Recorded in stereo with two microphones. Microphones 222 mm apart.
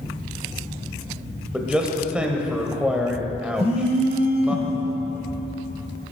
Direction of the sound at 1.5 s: 5° right (ahead or behind).